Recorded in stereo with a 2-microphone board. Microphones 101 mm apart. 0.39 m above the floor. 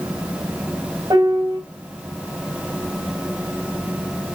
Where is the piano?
45° right (ahead or behind), 2.5 m.